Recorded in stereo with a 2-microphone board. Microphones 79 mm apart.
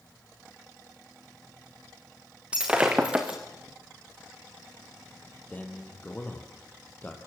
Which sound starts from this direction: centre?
Breaking glass, at 2.5 s.